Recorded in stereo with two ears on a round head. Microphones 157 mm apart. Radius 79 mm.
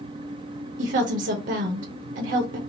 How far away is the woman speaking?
About 1.0 m.